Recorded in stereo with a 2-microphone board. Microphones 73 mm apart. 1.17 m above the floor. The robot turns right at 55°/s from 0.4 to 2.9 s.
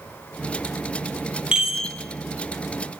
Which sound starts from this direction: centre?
A chime, at 1.5 s.